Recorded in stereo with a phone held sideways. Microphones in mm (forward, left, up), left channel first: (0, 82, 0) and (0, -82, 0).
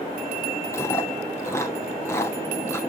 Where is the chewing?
15° left (ahead or behind), 1.0 m.